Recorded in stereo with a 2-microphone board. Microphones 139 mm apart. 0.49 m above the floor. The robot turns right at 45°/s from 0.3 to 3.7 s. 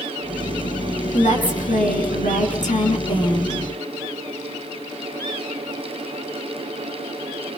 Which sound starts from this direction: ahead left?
A woman speaking, at 1.1 s.